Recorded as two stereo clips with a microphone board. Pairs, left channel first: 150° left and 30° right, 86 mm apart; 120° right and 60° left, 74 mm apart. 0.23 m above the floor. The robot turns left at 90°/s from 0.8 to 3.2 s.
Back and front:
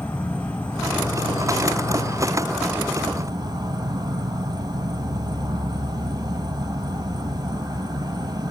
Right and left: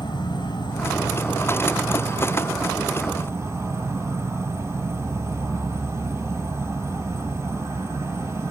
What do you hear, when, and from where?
0.0 s an insect: 135° right, 1.2 m; by 8.5 s 10° left, 1.2 m